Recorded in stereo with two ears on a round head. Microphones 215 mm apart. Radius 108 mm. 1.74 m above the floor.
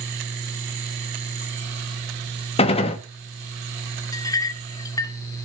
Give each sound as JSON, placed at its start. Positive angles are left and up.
{"t": 2.6, "sound": "a gunshot", "side_deg": 25, "distance_m": 1.2}
{"t": 4.1, "sound": "a clink", "side_deg": 15, "distance_m": 0.7}